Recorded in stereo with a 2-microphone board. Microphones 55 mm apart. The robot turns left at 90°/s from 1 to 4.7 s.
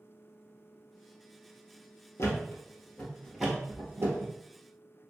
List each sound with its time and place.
2.2 s a thud: 60° left (ahead or behind), 1.1 m; by 4.3 s 65° right (ahead or behind), 1.1 m